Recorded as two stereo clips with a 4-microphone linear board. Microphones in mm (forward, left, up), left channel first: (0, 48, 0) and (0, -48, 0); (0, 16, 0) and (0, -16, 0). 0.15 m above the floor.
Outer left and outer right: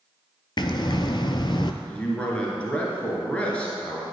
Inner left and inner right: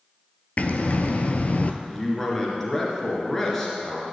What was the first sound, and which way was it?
Breathing, 55° left (ahead or behind).